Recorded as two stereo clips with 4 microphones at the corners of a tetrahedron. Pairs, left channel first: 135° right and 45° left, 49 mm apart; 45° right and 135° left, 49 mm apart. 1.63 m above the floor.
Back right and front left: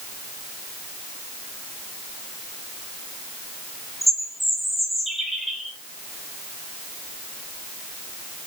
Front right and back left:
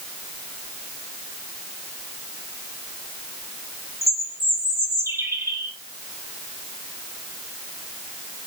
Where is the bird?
135° left, 2.5 m.